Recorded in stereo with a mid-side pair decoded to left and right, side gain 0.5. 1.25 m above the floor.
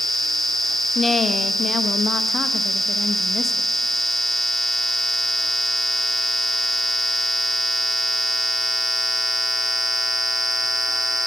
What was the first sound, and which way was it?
A woman speaking, 25° left.